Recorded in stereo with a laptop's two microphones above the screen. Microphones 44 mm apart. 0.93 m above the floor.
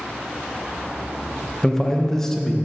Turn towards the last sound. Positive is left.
turn(degrees=10)  # may be behind; listen again after turning